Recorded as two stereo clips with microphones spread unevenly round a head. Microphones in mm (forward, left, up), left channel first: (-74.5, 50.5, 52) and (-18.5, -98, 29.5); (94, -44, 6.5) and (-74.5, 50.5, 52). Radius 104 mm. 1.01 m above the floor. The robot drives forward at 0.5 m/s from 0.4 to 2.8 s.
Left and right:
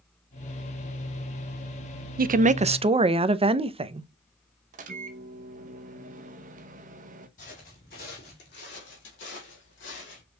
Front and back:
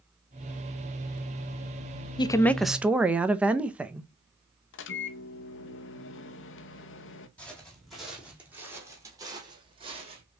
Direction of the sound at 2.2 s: 90° right.